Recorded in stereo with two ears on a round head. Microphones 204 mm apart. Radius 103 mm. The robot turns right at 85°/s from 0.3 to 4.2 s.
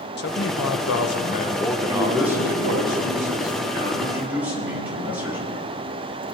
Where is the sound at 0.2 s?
55° left, 1.0 m; by 2.9 s 90° right, 1.0 m.